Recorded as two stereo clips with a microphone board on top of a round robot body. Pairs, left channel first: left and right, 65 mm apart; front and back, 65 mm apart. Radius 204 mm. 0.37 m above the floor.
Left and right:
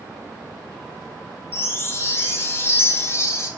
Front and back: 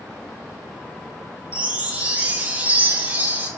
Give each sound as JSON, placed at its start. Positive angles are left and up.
{"t": 1.5, "sound": "a chime", "azimuth_deg": 120, "distance_m": 0.7}